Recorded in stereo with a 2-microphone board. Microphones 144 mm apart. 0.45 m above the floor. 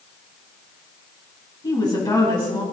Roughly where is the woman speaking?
Left.